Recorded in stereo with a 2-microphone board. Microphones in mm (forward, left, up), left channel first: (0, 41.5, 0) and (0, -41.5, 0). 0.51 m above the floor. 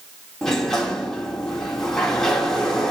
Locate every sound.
0.4 s a sliding door: 5° left (ahead or behind), 1.3 m